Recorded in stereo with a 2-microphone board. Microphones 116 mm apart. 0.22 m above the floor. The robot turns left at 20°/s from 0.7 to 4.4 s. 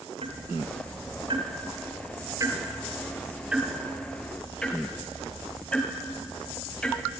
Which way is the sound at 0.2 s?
60° right (ahead or behind).